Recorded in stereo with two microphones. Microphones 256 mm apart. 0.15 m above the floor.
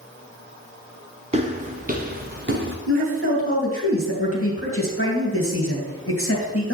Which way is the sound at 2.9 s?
55° left (ahead or behind).